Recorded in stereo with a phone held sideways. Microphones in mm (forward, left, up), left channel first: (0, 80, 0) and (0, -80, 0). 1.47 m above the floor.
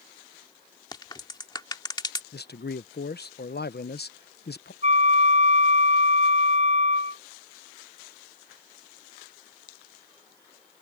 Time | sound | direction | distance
0.9 | a crack | 25° left (ahead or behind) | ?
2.3 | a man speaking | 80° left | ?
4.8 | a flute | 45° right (ahead or behind) | ?